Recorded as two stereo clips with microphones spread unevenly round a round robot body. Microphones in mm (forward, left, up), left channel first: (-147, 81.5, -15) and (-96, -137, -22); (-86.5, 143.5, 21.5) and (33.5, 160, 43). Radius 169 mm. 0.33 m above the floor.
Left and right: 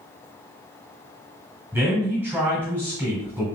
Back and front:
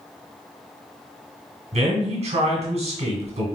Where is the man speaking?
Straight ahead, 1.8 m.